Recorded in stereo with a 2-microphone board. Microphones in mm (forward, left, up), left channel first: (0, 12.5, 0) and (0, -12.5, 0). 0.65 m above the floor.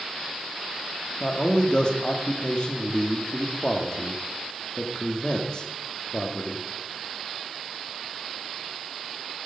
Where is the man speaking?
35° left (ahead or behind), 1.3 m.